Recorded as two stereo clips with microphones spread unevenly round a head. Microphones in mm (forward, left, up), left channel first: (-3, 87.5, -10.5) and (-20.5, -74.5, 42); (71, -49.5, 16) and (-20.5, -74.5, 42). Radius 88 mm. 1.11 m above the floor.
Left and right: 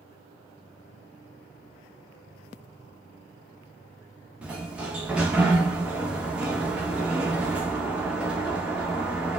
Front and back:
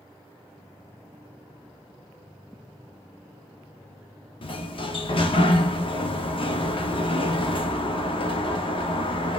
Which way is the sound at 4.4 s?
15° right.